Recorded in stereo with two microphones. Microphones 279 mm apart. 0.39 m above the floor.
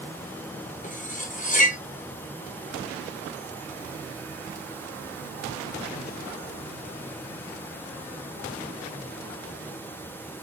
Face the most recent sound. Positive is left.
turn(degrees=25)  # may be behind; listen again after turning